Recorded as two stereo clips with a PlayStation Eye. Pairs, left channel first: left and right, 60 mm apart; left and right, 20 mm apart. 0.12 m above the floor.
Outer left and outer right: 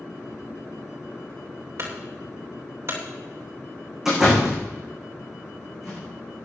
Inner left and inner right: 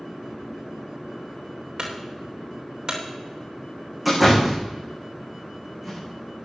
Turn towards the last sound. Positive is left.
turn(degrees=-5)  # may be behind; listen again after turning